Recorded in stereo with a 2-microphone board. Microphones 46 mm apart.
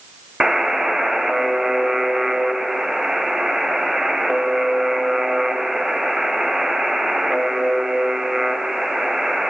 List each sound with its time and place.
0.4 s a buzzer: 10° right (ahead or behind), 0.8 m